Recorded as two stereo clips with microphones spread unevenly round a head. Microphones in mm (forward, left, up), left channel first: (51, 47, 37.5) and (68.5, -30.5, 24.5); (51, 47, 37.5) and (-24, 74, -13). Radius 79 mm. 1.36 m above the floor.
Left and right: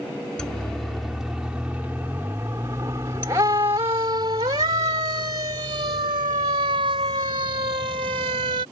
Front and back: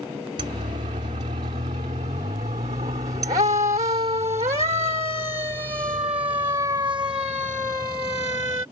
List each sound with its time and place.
0.4 s a siren: 175° right; by 8.6 s 120° right